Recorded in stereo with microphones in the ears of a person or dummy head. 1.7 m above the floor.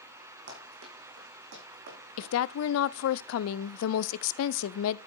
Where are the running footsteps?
65° right (ahead or behind), 4 m; by 2.3 s 60° right (ahead or behind), 5 m.